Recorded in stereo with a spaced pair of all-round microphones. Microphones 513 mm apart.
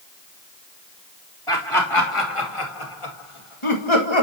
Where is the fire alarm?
No fire alarm in this recording.